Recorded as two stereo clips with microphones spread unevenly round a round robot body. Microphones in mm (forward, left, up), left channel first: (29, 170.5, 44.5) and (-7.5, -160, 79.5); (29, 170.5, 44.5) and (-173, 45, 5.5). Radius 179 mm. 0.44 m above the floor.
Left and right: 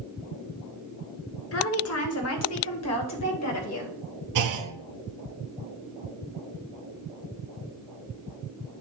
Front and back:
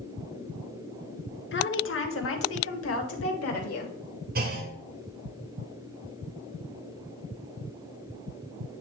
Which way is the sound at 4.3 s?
110° right.